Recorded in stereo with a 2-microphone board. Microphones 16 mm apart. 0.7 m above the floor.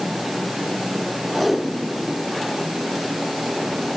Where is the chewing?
No chewing in this recording.